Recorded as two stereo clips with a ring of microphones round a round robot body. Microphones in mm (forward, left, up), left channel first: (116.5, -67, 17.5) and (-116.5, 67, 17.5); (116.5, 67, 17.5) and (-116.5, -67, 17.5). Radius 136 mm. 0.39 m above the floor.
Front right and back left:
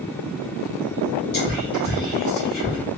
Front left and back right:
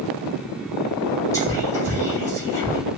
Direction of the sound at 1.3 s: 40° right.